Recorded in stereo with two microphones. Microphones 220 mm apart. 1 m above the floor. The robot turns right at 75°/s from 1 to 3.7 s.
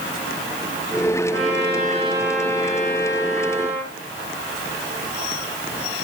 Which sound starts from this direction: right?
A trumpet, at 1.3 s.